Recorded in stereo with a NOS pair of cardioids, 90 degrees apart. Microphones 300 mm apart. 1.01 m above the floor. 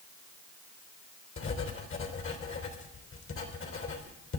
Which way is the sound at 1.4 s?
45° left.